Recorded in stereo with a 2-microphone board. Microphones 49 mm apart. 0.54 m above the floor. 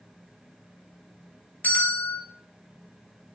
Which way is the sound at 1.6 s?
40° left (ahead or behind).